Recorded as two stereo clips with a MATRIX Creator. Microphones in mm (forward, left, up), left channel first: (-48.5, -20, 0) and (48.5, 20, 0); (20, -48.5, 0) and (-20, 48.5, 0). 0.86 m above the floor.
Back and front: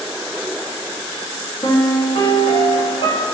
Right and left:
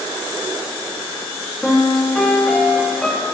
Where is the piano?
150° right, 1.7 m.